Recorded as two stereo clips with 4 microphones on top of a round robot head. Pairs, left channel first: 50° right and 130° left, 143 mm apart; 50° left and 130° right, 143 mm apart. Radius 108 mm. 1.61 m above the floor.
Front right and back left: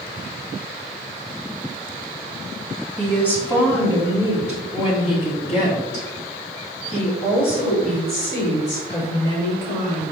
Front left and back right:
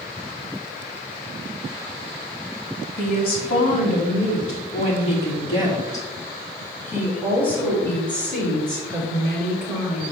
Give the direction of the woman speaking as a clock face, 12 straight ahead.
11 o'clock.